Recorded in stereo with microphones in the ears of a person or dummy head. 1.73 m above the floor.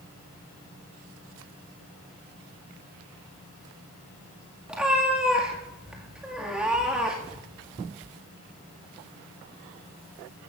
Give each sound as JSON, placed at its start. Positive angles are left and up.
{"t": 4.7, "sound": "a cat meowing", "side_deg": -5, "distance_m": 1.9}